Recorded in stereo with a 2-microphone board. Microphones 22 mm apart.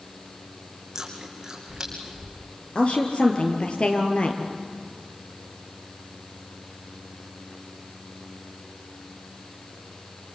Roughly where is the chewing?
Right.